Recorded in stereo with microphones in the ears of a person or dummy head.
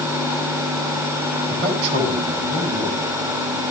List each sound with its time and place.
1.5 s a man speaking: 30° right (ahead or behind), 8.5 m